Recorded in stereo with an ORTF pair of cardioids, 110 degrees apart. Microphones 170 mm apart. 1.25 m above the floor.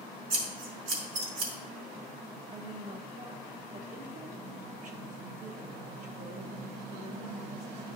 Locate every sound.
0.3 s scissors: 55° right, 2.5 m
2.5 s a woman speaking: 50° right, 1.5 m